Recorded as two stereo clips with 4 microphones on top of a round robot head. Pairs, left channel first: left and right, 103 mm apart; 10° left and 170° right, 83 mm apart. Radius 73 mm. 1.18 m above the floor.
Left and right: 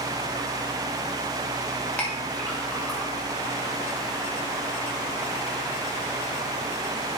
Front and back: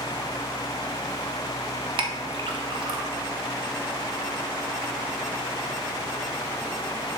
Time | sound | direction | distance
2.0 | a clink | 170° left | 1.1 m